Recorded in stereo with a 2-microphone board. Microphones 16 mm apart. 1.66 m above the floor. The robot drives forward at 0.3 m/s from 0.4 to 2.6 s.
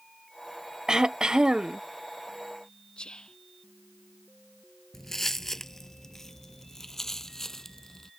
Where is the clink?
No clink in this recording.